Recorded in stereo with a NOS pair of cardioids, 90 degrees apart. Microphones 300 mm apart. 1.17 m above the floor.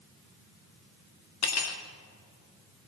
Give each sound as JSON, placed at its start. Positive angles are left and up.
{"t": 1.4, "sound": "cutlery clinking", "azimuth_deg": 55, "distance_m": 1.6}